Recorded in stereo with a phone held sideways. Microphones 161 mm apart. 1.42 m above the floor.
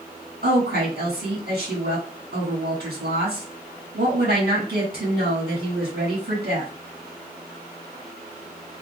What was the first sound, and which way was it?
A woman speaking, 80° right.